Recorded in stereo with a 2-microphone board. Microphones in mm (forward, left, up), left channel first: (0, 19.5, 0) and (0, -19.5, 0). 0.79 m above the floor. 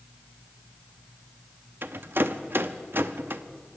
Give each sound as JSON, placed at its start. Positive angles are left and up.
{"t": 1.8, "sound": "a rattle", "side_deg": -70, "distance_m": 0.6}